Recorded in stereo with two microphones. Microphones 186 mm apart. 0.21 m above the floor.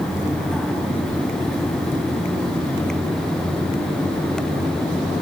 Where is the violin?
No violin in this recording.